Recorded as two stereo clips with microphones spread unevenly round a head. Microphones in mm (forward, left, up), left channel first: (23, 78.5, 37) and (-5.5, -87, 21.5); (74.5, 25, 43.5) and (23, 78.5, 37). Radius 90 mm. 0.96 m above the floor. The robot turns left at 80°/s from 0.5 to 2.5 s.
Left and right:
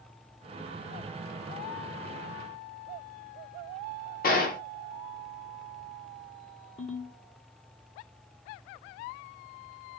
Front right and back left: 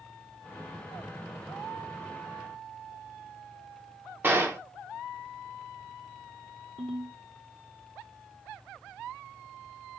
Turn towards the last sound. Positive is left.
turn(degrees=135)